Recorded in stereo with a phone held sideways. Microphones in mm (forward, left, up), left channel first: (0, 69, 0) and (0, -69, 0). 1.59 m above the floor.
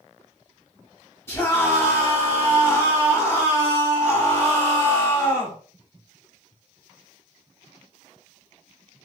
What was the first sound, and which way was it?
A scream, 20° left (ahead or behind).